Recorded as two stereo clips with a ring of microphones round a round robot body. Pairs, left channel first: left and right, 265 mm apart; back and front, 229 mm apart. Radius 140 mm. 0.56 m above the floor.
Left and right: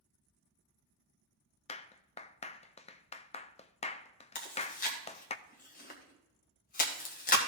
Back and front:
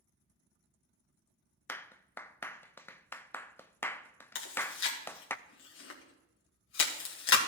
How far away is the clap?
About 0.5 m.